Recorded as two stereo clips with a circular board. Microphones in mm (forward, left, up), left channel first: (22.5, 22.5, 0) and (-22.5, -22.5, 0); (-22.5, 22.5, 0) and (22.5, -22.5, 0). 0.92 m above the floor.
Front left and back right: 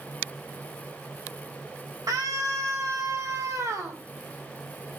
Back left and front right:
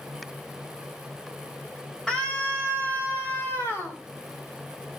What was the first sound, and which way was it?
A scream, 150° right.